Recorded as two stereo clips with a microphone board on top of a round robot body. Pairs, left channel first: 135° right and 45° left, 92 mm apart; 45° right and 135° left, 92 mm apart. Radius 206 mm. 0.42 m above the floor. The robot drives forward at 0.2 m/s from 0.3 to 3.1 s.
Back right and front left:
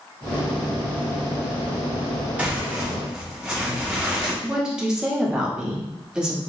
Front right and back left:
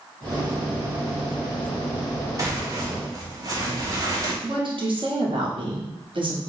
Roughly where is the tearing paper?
Left.